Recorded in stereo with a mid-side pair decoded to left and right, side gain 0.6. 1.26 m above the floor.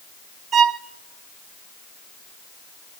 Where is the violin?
45° right, 0.6 m.